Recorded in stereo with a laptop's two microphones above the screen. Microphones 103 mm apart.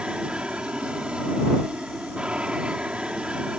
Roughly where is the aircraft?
Centre.